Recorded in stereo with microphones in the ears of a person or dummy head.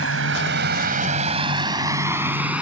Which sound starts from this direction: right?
A vehicle, at 0.0 s.